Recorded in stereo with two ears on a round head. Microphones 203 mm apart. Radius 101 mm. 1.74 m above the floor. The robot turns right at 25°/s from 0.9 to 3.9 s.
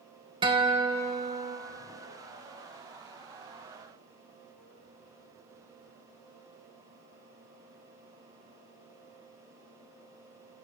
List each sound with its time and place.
0.4 s a guitar: 20° right (ahead or behind), 1.0 m; by 1.6 s 30° right (ahead or behind), 1.0 m